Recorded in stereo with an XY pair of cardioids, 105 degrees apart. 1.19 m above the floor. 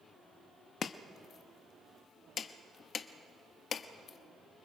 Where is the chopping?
55° left, 1.1 m.